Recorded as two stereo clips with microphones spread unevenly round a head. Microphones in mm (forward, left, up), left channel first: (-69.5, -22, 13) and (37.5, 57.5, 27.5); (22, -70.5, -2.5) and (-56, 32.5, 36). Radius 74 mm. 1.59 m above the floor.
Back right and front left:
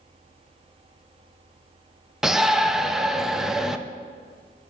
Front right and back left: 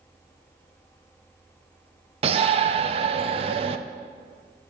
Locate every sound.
2.2 s a shout: 115° left, 0.6 m